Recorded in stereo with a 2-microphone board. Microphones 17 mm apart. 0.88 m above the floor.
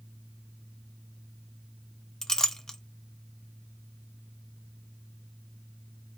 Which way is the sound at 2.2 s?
35° left (ahead or behind).